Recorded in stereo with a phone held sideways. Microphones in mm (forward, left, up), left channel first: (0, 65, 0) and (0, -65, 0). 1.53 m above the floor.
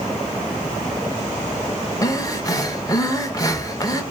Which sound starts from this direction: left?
Breathing, at 2.0 s.